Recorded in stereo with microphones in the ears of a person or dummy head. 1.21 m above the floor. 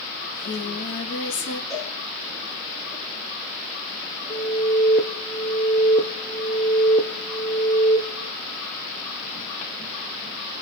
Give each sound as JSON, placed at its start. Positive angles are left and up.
{"t": 0.2, "sound": "singing", "side_deg": 65, "distance_m": 4.0}
{"t": 1.7, "sound": "a cowbell", "side_deg": 20, "distance_m": 7.5}
{"t": 4.3, "sound": "an alarm", "side_deg": 20, "distance_m": 0.9}